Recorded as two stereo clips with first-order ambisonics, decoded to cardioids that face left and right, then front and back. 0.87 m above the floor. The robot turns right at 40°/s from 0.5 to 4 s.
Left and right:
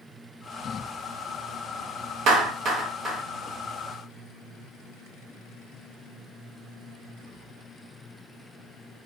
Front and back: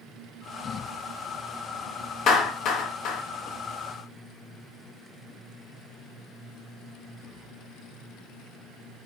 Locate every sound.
2.3 s a clap: 55° right, 0.7 m; by 3.2 s 20° right, 0.7 m